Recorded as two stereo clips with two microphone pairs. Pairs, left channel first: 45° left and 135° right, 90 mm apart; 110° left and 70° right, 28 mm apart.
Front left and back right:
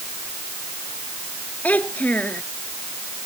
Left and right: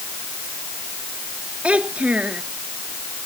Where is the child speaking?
30° right.